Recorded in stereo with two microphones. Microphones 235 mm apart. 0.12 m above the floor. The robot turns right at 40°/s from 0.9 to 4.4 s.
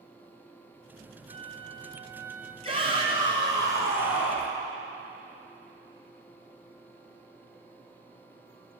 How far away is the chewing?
I don't hear chewing.